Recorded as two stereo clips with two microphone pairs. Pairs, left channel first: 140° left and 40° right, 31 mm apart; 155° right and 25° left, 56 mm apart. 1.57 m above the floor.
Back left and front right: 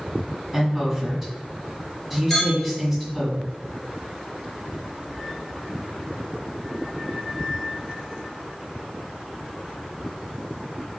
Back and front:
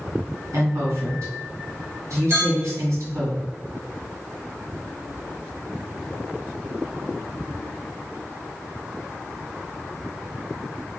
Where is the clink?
75° left, 1.8 m.